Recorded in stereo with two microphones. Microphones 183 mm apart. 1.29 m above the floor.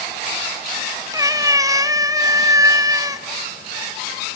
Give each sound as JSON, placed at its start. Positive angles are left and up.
{"t": 1.1, "sound": "a cat meowing", "side_deg": -20, "distance_m": 0.7}